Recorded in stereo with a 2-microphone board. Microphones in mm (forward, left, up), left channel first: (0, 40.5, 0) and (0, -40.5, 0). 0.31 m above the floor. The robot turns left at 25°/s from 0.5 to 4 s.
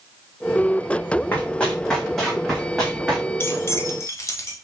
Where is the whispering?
No whispering in this recording.